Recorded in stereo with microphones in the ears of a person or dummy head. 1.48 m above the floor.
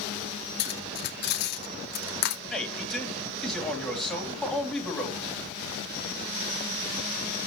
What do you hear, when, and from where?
0.6 s cutlery clinking: 55° left (ahead or behind), 2 m
2.5 s a man speaking: centre (ahead or behind), 3.5 m